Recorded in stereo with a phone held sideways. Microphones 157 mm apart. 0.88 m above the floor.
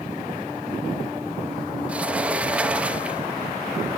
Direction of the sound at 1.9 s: 10° right (ahead or behind).